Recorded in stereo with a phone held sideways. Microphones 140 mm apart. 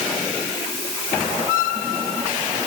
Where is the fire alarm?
No fire alarm in this recording.